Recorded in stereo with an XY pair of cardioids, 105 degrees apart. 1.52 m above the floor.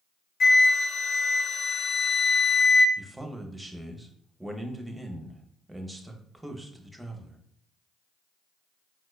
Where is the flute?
60° left, 0.5 m.